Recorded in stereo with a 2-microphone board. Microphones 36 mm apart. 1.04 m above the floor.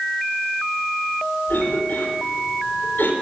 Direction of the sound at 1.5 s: 65° left (ahead or behind).